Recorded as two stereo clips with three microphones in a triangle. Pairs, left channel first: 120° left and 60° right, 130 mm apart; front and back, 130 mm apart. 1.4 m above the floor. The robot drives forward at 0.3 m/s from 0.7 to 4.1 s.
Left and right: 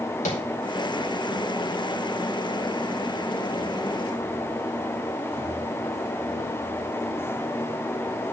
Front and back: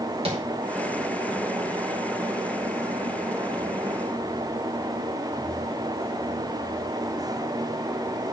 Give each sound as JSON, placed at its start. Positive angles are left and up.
{"t": 0.2, "sound": "tapping", "azimuth_deg": 140, "distance_m": 5.5}